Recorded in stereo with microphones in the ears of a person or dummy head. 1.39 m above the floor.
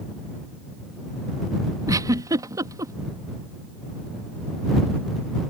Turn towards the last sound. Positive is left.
turn(degrees=-20)  # may be behind; listen again after turning